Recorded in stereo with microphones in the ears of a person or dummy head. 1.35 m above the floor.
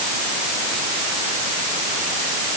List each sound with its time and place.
Only background noise.